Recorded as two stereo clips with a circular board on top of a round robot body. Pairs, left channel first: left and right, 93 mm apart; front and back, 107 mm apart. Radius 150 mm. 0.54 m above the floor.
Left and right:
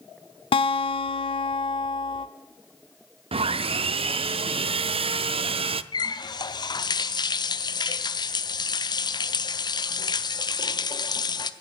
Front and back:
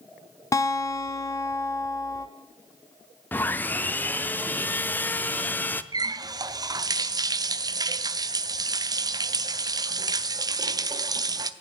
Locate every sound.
0.5 s a guitar: 65° left, 0.5 m
3.3 s sawing: 75° right, 0.5 m
5.9 s a running tap: 130° left, 0.8 m